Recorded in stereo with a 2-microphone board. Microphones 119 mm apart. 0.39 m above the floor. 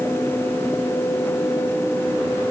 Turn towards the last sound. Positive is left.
No sound to turn to.